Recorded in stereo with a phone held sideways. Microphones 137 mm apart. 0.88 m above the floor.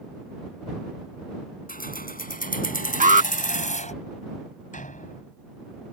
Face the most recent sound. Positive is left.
turn(degrees=65)  # may be behind; listen again after turning